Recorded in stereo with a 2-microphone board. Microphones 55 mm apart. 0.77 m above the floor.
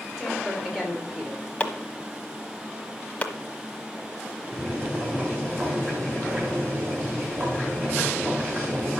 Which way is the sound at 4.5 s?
30° right (ahead or behind).